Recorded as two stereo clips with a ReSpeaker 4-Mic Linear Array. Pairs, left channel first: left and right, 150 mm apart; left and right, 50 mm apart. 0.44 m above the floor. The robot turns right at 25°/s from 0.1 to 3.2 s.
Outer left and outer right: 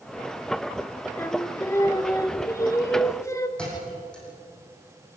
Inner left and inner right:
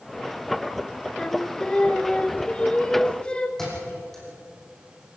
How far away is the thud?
About 6 m.